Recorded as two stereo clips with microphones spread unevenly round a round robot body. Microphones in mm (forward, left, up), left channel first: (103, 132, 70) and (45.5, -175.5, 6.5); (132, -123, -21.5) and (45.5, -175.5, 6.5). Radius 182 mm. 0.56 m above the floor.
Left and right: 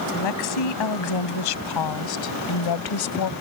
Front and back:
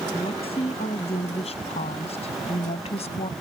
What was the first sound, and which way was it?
A woman speaking, 95° left.